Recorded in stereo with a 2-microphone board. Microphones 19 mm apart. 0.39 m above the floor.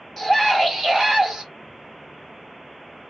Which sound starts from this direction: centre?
A scream, at 0.2 s.